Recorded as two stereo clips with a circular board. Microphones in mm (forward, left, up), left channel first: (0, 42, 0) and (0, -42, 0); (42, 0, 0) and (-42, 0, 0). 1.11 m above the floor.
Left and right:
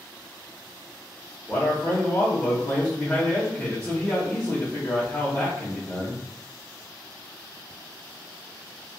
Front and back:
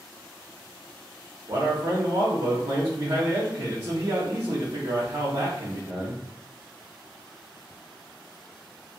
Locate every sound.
1.5 s a man speaking: 160° left, 0.8 m